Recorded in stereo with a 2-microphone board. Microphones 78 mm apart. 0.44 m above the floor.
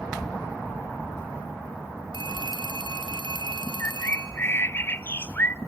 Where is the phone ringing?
85° right, 5 m.